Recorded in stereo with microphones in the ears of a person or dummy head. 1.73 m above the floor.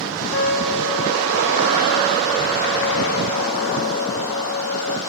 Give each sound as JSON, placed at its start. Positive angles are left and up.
{"t": 0.3, "sound": "a trumpet", "side_deg": 60, "distance_m": 0.9}